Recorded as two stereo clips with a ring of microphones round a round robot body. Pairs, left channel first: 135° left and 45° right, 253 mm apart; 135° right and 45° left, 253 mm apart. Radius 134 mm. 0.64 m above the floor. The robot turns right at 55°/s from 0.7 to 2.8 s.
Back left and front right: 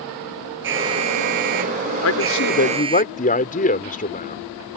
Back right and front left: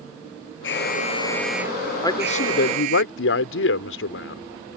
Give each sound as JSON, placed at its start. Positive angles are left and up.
{"t": 0.6, "sound": "an alarm", "azimuth_deg": -90}
{"t": 2.0, "sound": "a man speaking", "azimuth_deg": 150}